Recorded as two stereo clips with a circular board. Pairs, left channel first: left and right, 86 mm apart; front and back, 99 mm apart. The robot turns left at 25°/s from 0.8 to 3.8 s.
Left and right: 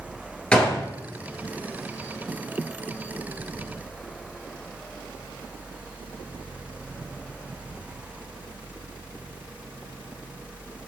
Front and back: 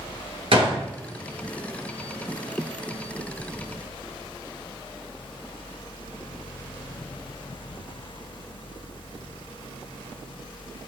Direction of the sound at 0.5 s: 165° left.